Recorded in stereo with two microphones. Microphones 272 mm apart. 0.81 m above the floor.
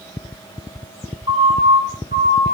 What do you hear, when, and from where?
1.3 s a siren: 60° left (ahead or behind), 4 m; by 2.5 s 35° left (ahead or behind), 4 m